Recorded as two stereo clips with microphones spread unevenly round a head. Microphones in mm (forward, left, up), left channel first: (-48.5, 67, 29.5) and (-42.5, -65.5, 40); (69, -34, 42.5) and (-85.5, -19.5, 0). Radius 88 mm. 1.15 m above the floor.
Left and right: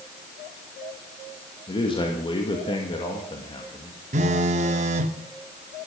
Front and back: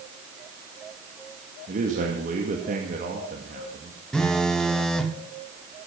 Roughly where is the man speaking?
Behind left.